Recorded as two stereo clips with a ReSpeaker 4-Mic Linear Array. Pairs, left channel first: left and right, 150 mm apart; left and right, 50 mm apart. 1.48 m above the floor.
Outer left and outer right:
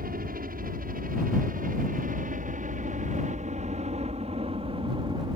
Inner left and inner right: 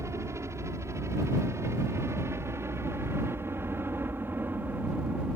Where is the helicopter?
75° right (ahead or behind); by 5.4 s 30° right (ahead or behind).